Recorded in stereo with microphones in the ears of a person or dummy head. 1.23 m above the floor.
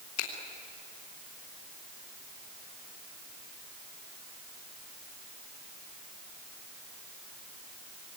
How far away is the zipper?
I don't hear a zipper.